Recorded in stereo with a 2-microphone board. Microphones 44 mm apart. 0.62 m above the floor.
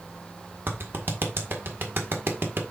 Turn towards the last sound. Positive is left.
turn(degrees=-60)  # may be behind; listen again after turning